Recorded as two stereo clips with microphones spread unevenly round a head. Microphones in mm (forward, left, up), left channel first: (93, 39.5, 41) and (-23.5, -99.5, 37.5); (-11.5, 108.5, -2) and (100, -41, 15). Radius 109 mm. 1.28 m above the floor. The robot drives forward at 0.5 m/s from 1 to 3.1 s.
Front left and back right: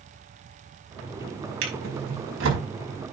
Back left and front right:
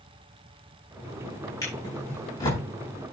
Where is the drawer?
155° right, 5 m; by 2.6 s 160° right, 5.5 m.